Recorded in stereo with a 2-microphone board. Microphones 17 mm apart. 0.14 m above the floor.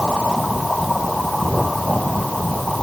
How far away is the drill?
No drill in this recording.